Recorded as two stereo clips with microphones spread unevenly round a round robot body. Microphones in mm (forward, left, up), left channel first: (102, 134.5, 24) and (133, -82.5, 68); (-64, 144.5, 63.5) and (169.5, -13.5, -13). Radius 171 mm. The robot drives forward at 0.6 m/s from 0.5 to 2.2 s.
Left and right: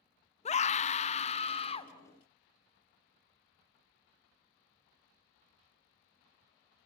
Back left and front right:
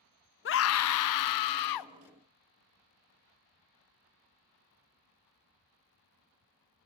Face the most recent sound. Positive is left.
turn(degrees=160)